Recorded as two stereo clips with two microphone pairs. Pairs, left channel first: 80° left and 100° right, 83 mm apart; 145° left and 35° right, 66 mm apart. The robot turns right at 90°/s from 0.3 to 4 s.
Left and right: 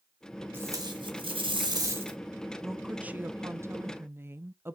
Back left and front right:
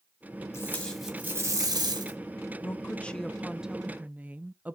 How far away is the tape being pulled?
About 3 m.